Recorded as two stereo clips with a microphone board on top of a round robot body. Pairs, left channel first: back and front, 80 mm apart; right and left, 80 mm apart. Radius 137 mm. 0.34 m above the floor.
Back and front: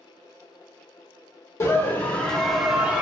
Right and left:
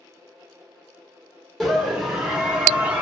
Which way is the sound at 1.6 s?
175° right.